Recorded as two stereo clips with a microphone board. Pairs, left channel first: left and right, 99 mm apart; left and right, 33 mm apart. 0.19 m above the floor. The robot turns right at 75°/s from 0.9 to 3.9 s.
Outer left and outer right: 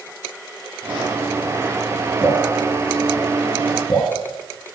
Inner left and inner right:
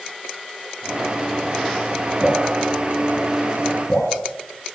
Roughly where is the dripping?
Right.